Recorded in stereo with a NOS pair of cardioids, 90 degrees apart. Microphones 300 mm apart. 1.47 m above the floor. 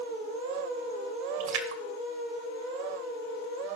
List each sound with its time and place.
1.4 s a splash: 70° right, 1.7 m